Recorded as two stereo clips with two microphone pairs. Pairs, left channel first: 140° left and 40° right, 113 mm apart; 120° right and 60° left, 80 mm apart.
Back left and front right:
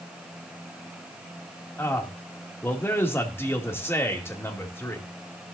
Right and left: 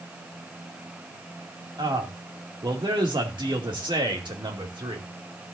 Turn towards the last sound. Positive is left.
turn(degrees=75)